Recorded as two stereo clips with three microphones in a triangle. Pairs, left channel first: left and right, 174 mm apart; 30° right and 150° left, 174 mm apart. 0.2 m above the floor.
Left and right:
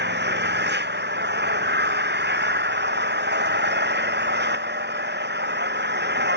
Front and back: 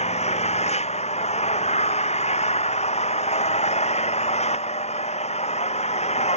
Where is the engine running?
80° right.